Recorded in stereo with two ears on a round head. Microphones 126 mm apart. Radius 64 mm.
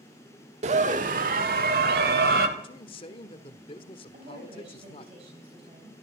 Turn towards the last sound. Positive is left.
turn(degrees=-45)  # may be behind; listen again after turning